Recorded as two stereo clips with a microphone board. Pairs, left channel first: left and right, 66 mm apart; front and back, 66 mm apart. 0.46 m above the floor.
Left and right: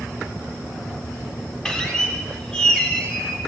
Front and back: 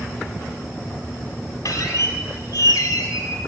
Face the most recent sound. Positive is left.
turn(degrees=10)